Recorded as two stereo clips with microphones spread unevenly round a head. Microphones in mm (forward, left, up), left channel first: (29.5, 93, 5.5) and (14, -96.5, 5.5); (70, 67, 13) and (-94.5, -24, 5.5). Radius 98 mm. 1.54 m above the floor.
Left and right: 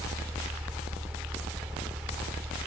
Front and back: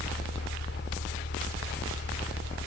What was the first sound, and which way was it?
A fan, 10° right.